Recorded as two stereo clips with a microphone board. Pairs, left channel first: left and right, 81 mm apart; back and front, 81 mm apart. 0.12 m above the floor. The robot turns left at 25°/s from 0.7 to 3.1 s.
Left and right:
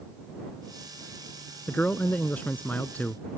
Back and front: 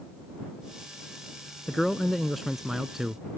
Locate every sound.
1.7 s a man speaking: 110° left; by 3.2 s 75° left